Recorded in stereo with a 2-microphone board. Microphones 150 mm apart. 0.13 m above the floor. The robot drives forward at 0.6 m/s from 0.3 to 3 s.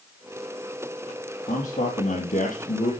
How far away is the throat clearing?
I don't hear throat clearing.